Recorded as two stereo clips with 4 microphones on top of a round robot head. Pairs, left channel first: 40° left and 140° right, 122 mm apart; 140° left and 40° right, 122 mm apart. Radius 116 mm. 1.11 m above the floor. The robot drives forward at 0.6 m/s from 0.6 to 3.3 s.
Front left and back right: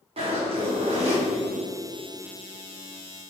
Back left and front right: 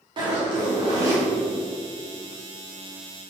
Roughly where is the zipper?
Right.